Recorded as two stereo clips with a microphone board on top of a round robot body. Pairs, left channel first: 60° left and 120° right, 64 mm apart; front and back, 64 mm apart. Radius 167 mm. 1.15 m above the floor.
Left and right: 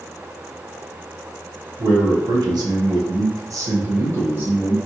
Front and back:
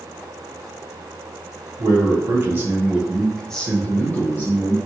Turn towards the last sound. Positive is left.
turn(degrees=-50)